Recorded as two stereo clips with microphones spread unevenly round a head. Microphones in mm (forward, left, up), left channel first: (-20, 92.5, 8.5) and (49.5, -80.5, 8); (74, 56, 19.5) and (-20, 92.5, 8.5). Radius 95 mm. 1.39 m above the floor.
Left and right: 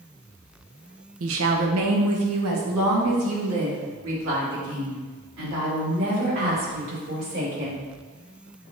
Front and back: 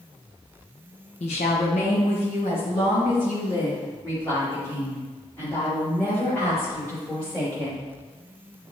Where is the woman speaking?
55° right, 0.9 m; by 7.9 s 100° right, 5.5 m.